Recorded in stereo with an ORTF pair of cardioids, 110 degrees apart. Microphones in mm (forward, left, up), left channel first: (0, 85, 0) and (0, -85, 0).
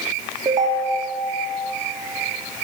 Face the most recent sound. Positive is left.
turn(degrees=-25)